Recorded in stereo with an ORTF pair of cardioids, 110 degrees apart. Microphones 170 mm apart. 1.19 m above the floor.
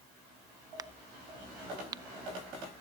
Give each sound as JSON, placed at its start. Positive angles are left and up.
{"t": 0.8, "sound": "a crack", "azimuth_deg": -20, "distance_m": 0.5}